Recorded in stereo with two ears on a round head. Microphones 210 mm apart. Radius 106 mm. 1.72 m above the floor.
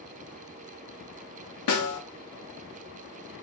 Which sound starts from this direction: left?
A snare drum, at 1.7 s.